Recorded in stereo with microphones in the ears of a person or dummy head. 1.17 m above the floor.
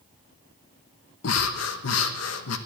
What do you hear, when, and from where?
1.2 s breathing: 70° left (ahead or behind), 1.1 m